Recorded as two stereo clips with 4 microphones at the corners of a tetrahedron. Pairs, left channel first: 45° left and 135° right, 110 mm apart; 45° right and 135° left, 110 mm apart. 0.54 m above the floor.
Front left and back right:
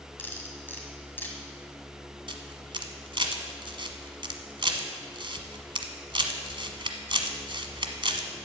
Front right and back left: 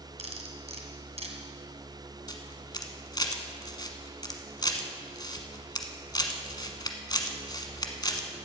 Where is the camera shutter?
95° right, 1.2 m.